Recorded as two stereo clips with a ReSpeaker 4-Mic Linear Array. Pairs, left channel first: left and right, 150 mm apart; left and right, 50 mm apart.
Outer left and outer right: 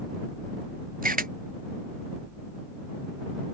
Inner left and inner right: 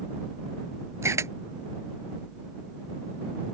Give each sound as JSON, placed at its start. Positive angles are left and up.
{"t": 1.0, "sound": "a camera shutter", "side_deg": -65}